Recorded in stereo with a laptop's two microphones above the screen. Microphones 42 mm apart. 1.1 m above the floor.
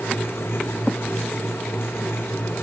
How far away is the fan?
About 0.7 m.